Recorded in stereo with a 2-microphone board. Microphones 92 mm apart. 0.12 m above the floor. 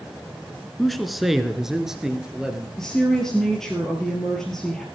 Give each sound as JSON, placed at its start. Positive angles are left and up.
{"t": 0.8, "sound": "a man speaking", "side_deg": 0, "distance_m": 1.3}
{"t": 2.8, "sound": "a woman speaking", "side_deg": 5, "distance_m": 2.0}